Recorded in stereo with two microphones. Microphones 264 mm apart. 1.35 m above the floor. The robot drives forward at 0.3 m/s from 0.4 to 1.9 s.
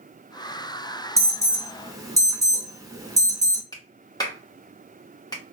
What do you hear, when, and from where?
1.2 s an alarm: 10° right (ahead or behind), 1.2 m; by 3.6 s 15° right (ahead or behind), 1.0 m
3.7 s a clap: 15° left (ahead or behind), 1.0 m